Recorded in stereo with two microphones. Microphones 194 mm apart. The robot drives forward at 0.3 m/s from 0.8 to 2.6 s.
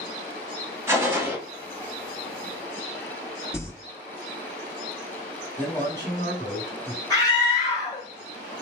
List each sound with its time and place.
0.9 s a gunshot: 15° right (ahead or behind), 0.9 m; by 1.4 s 10° right (ahead or behind), 1.0 m
3.5 s crumpling: 15° left (ahead or behind), 0.9 m
5.6 s a man speaking: 15° left (ahead or behind), 1.5 m
7.1 s a scream: 20° left (ahead or behind), 1.1 m